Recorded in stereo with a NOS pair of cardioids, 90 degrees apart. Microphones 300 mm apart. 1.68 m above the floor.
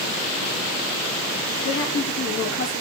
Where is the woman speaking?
40° left, 4.5 m.